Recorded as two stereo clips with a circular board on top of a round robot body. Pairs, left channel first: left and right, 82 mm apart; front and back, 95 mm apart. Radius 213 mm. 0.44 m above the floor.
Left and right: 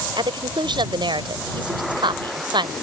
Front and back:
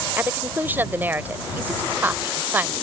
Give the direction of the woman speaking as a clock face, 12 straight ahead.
4 o'clock.